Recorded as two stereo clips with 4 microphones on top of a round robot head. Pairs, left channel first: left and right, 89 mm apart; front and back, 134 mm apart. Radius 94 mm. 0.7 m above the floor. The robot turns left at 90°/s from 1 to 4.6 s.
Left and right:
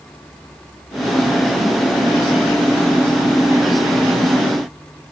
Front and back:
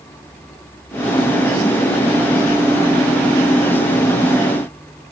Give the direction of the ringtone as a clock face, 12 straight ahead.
I don't hear a ringtone.